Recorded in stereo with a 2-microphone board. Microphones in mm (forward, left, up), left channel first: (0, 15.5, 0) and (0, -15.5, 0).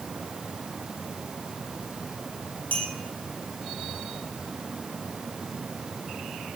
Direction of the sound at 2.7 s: 65° left (ahead or behind).